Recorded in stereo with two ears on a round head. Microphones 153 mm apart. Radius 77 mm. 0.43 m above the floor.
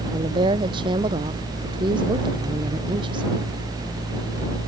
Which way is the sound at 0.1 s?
30° right (ahead or behind).